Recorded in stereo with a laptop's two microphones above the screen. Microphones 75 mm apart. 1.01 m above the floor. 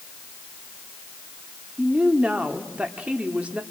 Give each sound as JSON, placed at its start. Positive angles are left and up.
{"t": 1.8, "sound": "a woman speaking", "side_deg": -20, "distance_m": 2.5}